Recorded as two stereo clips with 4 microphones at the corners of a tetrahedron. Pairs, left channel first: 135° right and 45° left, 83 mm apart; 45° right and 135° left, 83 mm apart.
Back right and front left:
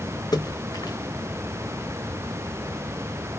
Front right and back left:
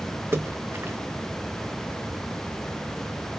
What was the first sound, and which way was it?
A splash, 165° right.